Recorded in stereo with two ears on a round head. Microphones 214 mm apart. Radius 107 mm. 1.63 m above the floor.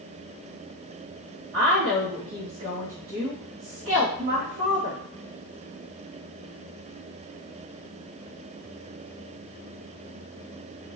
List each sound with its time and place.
1.5 s a woman speaking: 50° right (ahead or behind), 1.0 m